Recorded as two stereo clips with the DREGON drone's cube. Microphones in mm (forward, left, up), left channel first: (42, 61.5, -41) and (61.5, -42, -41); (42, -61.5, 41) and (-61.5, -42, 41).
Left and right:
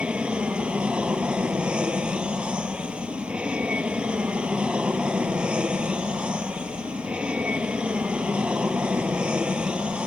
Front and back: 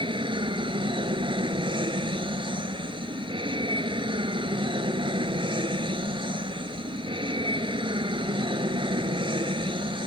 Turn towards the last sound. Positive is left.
turn(degrees=-160)